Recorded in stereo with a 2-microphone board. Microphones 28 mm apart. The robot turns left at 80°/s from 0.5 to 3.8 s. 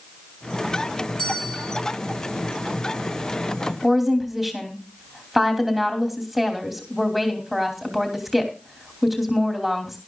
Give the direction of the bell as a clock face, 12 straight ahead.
7 o'clock.